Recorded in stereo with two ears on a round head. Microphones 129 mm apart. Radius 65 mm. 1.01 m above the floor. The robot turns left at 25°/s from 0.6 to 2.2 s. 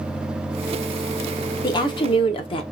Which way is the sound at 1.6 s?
30° left (ahead or behind).